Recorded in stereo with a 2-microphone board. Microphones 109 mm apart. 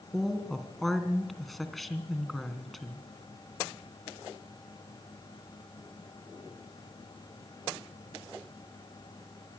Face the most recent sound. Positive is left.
turn(degrees=0)  # may be behind; listen again after turning